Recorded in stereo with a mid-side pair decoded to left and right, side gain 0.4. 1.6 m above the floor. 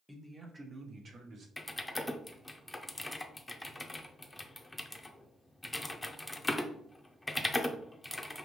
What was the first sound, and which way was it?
A man speaking, straight ahead.